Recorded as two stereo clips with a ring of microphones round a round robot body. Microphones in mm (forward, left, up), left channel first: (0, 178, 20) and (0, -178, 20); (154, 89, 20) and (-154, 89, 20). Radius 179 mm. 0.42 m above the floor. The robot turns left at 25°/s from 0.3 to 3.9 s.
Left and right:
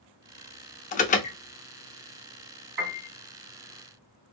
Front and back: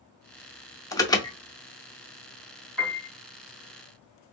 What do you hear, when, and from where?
0.9 s an alarm: 65° left, 0.6 m; by 1.4 s 50° left, 0.6 m
2.8 s a piano: 95° right, 2 m; by 3.1 s 105° right, 2 m